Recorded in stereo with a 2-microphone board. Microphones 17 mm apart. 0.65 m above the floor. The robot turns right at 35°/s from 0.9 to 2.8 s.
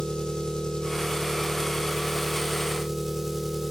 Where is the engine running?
130° left, 1.8 m; by 3.7 s 165° right, 1.8 m.